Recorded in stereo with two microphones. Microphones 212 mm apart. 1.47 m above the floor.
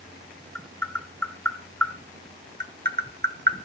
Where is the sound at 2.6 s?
50° right (ahead or behind), 1.3 m.